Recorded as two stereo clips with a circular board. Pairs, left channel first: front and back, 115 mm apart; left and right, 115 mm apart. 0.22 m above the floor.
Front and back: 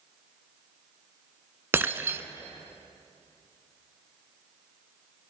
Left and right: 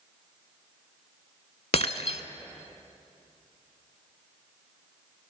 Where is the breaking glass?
110° left, 0.5 m.